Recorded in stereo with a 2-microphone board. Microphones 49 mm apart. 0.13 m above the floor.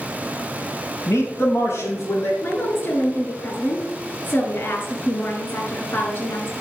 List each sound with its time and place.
1.1 s a man speaking: 75° left (ahead or behind), 4.5 m; by 2.3 s 65° left (ahead or behind), 5 m
2.4 s a woman speaking: 50° left (ahead or behind), 2 m